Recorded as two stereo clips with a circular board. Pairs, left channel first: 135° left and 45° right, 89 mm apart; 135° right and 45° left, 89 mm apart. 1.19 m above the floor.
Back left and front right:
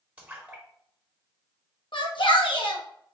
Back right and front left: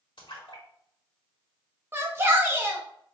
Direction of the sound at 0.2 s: 120° right.